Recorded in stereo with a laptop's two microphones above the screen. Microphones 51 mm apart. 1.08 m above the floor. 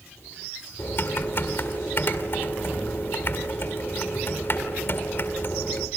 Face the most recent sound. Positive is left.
turn(degrees=50)  # may be behind; listen again after turning